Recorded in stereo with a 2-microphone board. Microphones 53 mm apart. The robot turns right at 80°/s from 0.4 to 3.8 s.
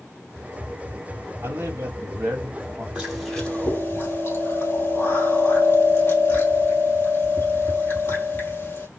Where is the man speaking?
125° right, 2 m; by 2.9 s 10° right, 2 m.